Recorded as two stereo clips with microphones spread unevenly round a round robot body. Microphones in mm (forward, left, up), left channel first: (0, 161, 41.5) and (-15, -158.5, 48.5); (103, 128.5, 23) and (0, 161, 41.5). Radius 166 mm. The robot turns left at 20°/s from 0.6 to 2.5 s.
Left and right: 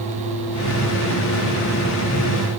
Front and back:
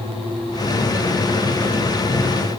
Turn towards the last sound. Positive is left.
No sound to turn to.